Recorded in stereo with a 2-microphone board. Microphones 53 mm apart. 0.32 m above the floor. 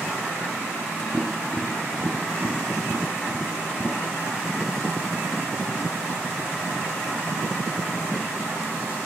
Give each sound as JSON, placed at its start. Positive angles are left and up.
{"t": 1.1, "sound": "tapping", "side_deg": 15, "distance_m": 2.0}